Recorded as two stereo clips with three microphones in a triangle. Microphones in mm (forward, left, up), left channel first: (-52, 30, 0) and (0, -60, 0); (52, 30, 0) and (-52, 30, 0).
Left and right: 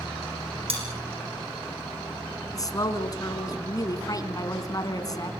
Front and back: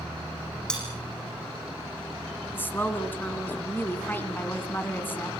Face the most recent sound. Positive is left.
turn(degrees=70)